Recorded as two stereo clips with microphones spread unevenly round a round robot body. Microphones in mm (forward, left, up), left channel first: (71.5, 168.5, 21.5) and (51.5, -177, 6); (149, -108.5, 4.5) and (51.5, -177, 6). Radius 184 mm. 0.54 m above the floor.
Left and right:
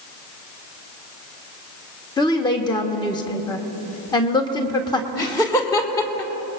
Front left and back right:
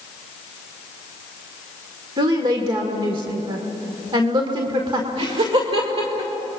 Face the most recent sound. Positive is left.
turn(degrees=170)